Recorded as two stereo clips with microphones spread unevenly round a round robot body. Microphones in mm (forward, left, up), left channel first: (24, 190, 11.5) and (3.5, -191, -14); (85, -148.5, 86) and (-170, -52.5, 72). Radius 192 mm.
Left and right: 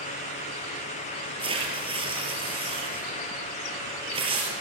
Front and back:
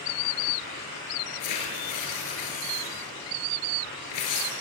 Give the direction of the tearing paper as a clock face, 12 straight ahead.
1 o'clock.